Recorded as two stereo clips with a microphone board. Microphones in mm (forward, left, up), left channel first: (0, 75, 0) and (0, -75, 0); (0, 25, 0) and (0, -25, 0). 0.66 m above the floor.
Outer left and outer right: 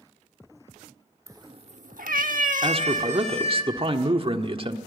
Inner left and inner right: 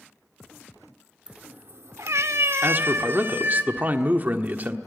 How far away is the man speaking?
About 1.4 m.